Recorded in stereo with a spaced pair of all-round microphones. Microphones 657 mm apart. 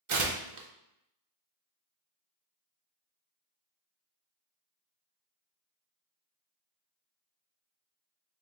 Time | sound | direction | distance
0.1 | tearing paper | 55° right (ahead or behind) | 0.5 m